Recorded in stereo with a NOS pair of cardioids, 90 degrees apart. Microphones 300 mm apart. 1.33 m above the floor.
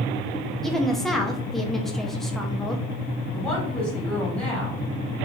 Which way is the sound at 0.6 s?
Straight ahead.